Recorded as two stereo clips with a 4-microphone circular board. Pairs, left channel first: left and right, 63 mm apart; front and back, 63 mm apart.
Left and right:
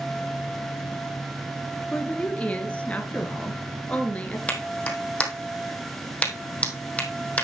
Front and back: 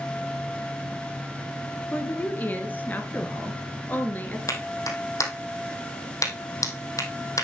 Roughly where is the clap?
Ahead left.